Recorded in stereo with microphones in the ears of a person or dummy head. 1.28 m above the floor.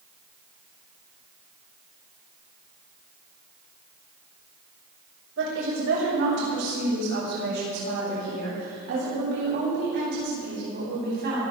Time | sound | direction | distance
5.4 | a woman speaking | 65° right (ahead or behind) | 6.5 m